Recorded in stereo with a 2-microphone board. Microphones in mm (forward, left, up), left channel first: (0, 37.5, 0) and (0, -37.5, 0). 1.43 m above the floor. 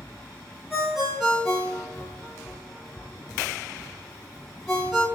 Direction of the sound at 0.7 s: Centre (ahead or behind).